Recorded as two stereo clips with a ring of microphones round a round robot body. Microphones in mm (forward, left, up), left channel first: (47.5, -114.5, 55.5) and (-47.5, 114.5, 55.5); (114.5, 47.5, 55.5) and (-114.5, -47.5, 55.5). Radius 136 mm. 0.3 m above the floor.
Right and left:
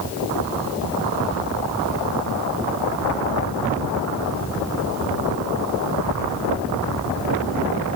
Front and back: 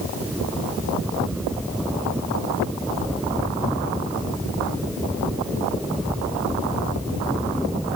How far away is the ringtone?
No ringtone in this recording.